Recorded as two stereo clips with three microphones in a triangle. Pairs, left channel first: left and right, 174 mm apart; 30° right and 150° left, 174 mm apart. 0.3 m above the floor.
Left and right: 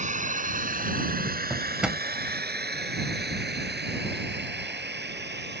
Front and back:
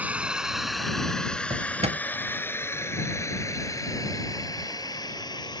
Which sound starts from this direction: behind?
A drawer, at 1.5 s.